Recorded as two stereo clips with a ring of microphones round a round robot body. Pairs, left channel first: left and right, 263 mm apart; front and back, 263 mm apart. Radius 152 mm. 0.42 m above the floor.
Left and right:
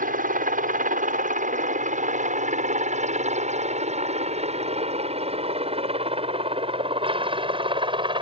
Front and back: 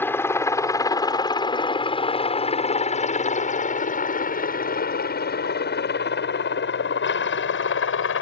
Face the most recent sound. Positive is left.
turn(degrees=-25)